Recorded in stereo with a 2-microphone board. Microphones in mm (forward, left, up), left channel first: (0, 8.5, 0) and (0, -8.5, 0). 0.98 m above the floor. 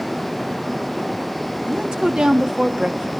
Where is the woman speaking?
70° right (ahead or behind), 2.0 m.